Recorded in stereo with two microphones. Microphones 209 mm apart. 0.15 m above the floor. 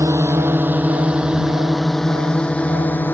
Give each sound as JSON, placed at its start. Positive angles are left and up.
{"t": 0.0, "sound": "a drone", "side_deg": -15}